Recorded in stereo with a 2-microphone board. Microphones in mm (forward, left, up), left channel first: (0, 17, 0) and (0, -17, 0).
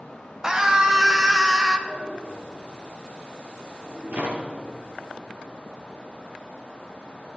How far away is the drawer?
About 4 m.